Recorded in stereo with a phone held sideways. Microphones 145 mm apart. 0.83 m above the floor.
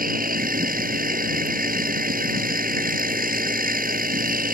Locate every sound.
0.0 s a machine running: 75° right (ahead or behind)